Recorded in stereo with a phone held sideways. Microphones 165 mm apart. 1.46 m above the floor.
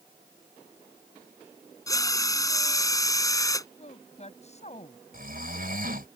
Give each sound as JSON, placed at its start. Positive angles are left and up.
{"t": 1.9, "sound": "a drill", "side_deg": 20}
{"t": 3.8, "sound": "a woman speaking", "side_deg": 45}
{"t": 5.1, "sound": "snoring", "side_deg": -60}